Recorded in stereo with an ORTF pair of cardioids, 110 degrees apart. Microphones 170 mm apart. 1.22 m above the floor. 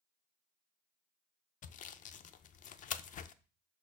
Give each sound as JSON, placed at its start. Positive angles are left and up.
{"t": 1.6, "sound": "sawing", "azimuth_deg": 50, "distance_m": 0.6}